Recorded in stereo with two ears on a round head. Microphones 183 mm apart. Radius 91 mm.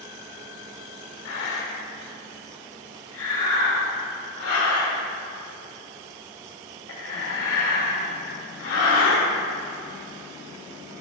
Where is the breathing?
70° left (ahead or behind), 2 m.